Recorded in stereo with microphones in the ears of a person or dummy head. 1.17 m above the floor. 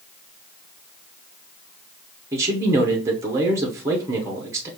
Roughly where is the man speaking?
Centre.